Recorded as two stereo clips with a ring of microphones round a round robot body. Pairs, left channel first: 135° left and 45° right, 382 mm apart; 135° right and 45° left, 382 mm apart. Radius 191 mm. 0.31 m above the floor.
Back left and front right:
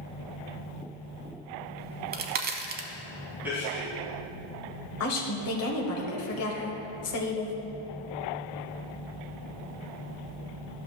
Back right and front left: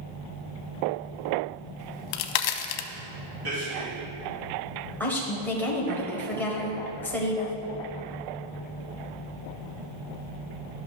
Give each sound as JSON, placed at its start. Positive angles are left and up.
{"t": 1.8, "sound": "a crack", "azimuth_deg": -110, "distance_m": 0.6}
{"t": 3.4, "sound": "a man speaking", "azimuth_deg": 40, "distance_m": 3.0}
{"t": 5.0, "sound": "a woman speaking", "azimuth_deg": 145, "distance_m": 1.4}